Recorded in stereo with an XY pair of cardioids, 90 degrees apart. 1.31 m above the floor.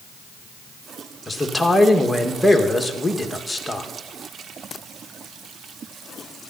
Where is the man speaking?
10° left, 1.8 m.